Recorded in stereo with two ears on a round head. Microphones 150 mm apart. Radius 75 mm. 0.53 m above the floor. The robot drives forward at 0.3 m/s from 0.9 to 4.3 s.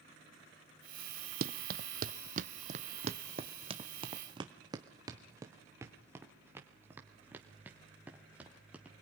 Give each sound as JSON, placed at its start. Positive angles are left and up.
{"t": 1.4, "sound": "running footsteps", "side_deg": -60, "distance_m": 0.9}